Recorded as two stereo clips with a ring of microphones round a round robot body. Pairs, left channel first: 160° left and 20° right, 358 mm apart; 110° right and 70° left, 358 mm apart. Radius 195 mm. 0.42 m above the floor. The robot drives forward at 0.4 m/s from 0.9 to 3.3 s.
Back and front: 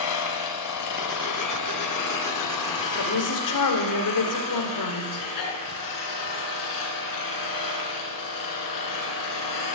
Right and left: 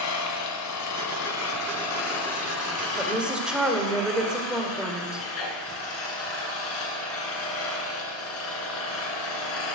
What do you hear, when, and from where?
0.0 s an engine running: 160° right, 1.6 m; by 9.7 s 165° right, 2.5 m
3.0 s a woman speaking: 150° left, 1.9 m; by 5.3 s 155° left, 2.0 m